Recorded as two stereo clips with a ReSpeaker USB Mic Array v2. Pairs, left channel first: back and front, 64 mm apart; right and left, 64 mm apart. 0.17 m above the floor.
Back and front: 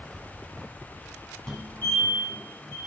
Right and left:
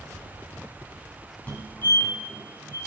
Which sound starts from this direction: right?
A fire alarm, at 1.5 s.